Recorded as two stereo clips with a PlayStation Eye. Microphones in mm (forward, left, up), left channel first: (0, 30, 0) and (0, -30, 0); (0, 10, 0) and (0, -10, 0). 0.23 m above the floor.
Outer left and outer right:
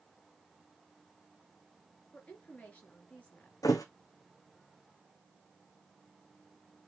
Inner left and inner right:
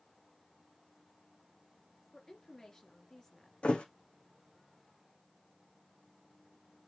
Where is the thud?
80° left, 1.4 m.